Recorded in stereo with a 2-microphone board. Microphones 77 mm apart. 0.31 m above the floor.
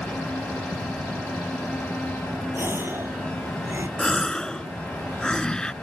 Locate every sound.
2.5 s a gasp: 30° right (ahead or behind)
4.0 s a gasp: 10° left (ahead or behind)